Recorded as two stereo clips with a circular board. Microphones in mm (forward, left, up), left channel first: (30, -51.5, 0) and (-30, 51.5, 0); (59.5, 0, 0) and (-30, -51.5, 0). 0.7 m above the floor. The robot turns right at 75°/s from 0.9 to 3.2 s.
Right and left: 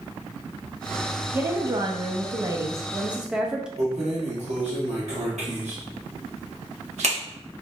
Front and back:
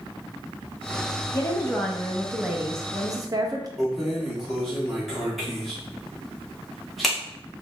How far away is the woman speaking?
About 0.5 m.